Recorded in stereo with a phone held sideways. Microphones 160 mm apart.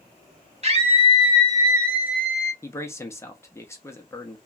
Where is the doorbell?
No doorbell in this recording.